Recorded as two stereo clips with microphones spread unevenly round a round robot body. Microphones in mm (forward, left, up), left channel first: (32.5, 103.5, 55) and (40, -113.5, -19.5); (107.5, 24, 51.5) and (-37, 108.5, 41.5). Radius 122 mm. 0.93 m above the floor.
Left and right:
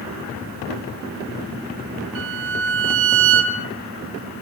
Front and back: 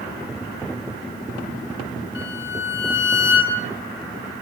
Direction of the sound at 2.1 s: 60° right.